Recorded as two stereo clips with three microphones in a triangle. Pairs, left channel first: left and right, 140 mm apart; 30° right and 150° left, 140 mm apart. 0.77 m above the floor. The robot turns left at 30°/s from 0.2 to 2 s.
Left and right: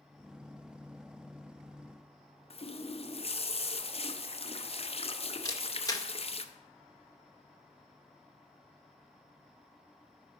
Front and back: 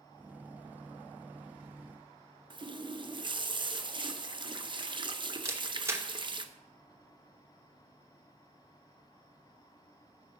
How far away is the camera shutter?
About 0.7 m.